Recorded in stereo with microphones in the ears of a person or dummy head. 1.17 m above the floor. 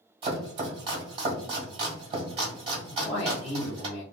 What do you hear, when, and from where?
0.2 s chopping: 25° right (ahead or behind), 1.4 m
2.9 s a man speaking: 25° left (ahead or behind), 0.7 m